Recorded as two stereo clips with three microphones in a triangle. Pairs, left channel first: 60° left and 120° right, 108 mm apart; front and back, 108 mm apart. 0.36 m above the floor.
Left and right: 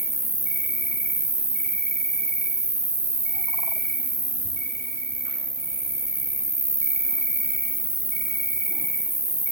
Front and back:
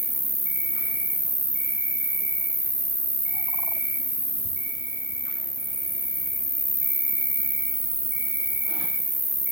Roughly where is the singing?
No singing in this recording.